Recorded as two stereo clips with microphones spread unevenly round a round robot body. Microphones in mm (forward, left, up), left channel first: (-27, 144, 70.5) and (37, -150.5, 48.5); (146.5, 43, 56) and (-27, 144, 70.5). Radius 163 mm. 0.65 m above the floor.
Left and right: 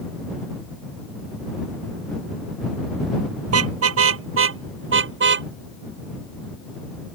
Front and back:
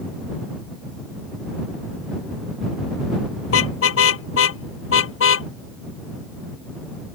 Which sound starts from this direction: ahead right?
A car horn, at 3.5 s.